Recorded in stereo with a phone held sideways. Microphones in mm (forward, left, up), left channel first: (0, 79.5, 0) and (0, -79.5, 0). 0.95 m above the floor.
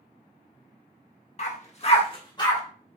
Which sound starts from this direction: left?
A dog barking, at 1.4 s.